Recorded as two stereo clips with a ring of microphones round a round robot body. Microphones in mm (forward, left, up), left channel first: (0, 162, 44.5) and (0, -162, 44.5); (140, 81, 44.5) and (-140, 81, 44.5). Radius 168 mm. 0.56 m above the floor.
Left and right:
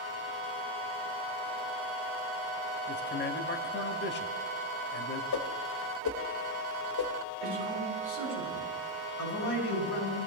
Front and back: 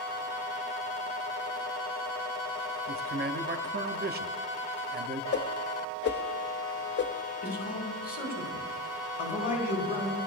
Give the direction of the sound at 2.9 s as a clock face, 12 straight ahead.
7 o'clock.